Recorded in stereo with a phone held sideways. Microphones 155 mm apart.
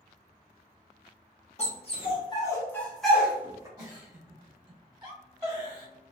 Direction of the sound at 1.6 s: 45° left (ahead or behind).